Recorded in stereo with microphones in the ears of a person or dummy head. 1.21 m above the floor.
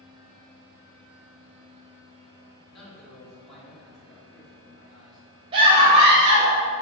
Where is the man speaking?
Centre (ahead or behind), 2.5 m.